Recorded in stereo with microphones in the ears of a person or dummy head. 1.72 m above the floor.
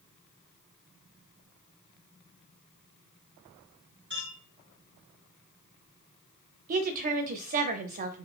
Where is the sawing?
No sawing in this recording.